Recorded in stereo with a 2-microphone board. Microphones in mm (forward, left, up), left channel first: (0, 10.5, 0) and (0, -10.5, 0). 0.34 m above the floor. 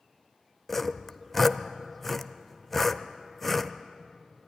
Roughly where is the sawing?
Centre.